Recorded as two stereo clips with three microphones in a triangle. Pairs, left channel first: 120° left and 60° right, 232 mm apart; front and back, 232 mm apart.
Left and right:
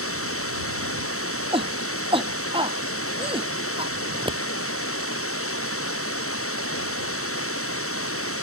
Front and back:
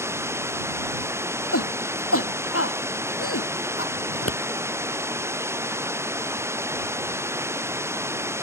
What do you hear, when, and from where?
0.0 s running water: 100° left
1.5 s a shout: 5° left
4.1 s scissors: 10° left